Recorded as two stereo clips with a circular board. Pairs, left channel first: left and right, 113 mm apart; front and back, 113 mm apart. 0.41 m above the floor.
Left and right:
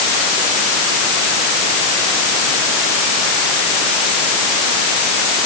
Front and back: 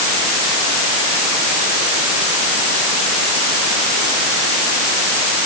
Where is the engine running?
No engine running in this recording.